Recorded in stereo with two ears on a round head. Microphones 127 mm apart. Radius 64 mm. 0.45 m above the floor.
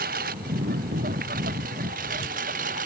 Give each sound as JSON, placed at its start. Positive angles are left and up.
{"t": 0.0, "sound": "a lawn mower", "side_deg": -75}